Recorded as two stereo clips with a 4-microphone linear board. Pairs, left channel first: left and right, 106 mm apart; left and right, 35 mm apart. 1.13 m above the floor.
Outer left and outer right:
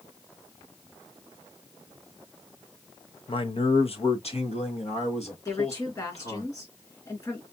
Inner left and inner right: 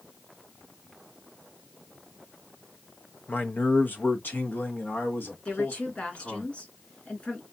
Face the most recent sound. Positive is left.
turn(degrees=35)  # may be behind; listen again after turning